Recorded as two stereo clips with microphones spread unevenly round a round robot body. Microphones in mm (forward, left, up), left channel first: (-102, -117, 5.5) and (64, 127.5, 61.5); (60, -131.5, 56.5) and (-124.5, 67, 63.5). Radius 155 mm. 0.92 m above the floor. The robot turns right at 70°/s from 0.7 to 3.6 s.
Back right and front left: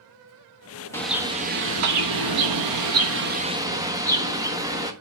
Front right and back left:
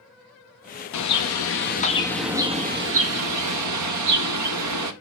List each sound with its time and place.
0.9 s a bird: 50° right, 1.4 m; by 4.9 s 140° left, 1.4 m